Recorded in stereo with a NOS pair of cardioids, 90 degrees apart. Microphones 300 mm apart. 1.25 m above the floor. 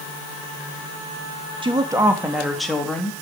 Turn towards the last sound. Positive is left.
turn(degrees=5)